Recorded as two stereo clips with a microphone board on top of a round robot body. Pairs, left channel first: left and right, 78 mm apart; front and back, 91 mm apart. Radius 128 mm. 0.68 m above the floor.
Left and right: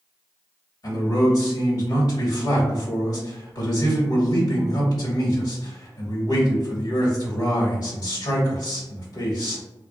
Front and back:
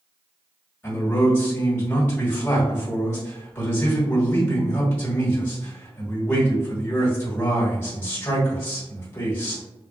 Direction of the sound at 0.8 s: 65° left.